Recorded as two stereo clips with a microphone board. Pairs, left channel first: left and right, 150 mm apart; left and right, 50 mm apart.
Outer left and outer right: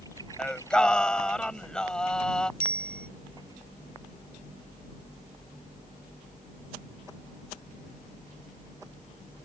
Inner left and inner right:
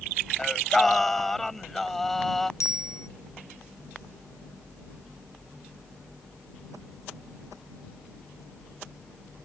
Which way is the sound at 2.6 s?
80° left.